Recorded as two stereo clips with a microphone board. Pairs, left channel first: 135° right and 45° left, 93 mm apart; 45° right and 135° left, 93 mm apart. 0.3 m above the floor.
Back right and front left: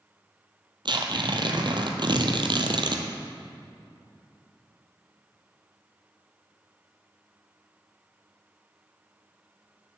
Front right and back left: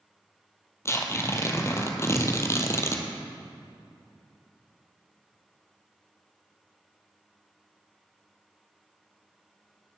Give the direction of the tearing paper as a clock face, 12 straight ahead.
12 o'clock.